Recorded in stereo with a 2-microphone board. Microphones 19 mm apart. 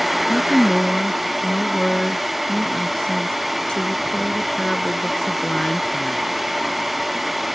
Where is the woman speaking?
50° left (ahead or behind).